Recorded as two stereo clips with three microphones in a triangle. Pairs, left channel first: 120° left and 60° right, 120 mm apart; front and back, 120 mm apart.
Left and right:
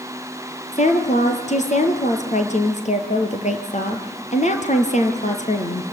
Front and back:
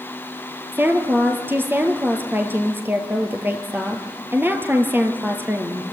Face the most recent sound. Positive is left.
turn(degrees=105)